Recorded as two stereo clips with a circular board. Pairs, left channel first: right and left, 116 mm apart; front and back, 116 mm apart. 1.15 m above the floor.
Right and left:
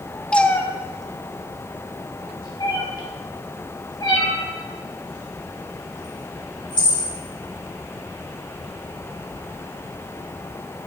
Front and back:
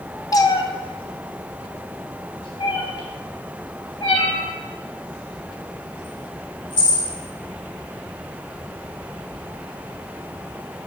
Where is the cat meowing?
15° right, 0.5 m; by 7.1 s 45° right, 4 m.